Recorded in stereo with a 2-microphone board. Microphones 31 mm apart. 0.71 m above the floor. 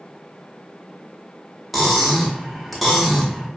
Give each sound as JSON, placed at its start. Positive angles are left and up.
{"t": 1.7, "sound": "cutlery clinking", "side_deg": -5, "distance_m": 0.9}